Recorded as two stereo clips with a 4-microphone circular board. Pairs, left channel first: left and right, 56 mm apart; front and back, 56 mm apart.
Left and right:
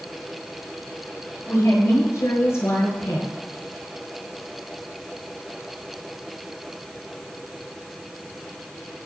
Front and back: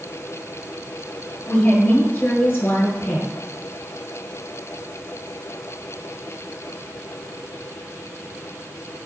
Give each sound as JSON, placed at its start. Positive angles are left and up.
{"t": 1.5, "sound": "a woman speaking", "azimuth_deg": 55, "distance_m": 6.5}